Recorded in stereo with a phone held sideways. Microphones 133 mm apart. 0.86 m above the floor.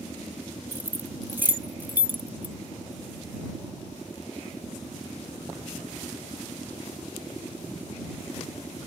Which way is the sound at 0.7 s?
15° right (ahead or behind).